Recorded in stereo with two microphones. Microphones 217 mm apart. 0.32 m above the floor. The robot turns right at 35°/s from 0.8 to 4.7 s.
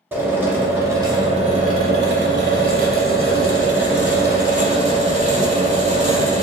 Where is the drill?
170° right, 0.9 m; by 6.4 s 35° right, 0.9 m.